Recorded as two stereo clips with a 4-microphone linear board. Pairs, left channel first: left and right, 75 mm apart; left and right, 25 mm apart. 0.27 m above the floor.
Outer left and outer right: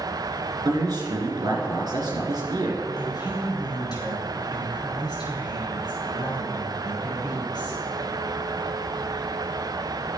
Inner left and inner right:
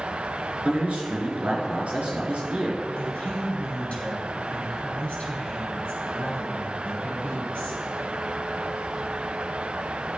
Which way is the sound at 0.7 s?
65° right (ahead or behind).